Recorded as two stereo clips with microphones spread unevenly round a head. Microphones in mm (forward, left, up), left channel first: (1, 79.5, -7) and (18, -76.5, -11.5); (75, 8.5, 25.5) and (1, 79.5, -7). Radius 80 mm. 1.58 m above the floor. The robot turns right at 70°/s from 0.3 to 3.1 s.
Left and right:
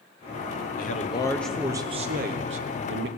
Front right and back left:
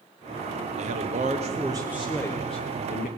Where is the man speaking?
135° left, 0.8 m; by 3.1 s 65° right, 0.8 m.